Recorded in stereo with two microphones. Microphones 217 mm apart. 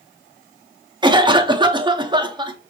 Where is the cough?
20° right (ahead or behind), 0.6 m.